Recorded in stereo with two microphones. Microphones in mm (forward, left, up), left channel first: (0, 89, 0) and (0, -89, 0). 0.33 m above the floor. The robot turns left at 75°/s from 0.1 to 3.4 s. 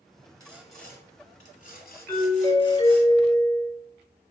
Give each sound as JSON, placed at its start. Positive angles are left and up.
{"t": 0.4, "sound": "sawing", "azimuth_deg": -155, "distance_m": 1.1}
{"t": 2.1, "sound": "a doorbell", "side_deg": 15, "distance_m": 1.7}